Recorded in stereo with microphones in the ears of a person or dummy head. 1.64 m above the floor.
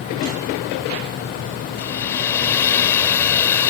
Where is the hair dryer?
15° left (ahead or behind).